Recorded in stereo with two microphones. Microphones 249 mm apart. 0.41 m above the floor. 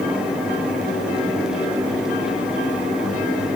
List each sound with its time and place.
Only background noise.